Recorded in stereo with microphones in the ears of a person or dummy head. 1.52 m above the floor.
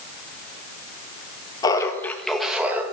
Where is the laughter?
20° left (ahead or behind), 1.9 m; by 2.8 s 15° right (ahead or behind), 1.9 m.